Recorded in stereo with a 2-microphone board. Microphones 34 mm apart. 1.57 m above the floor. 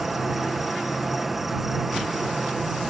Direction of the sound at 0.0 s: 5° right (ahead or behind).